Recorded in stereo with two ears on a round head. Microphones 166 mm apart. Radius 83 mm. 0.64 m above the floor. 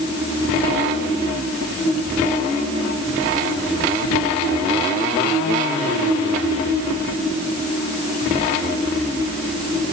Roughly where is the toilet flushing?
No toilet flushing in this recording.